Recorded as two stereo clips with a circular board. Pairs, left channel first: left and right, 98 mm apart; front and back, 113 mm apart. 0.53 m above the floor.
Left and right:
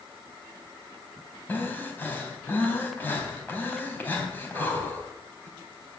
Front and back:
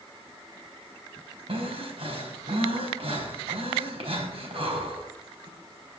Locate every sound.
1.5 s breathing: 160° left, 3.5 m